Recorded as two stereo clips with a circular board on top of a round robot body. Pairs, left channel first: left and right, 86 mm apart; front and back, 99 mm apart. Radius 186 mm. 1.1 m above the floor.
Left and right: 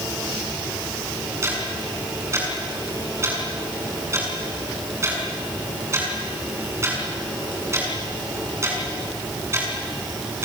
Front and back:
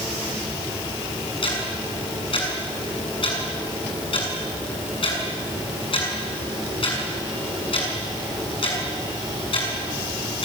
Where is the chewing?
No chewing in this recording.